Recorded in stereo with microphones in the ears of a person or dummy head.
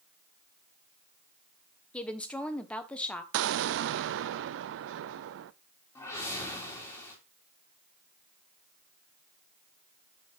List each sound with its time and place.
1.9 s a woman speaking: 15° left (ahead or behind), 1.2 m
3.3 s an explosion: 70° right (ahead or behind), 0.5 m
6.0 s a whoosh: 20° left (ahead or behind), 2.5 m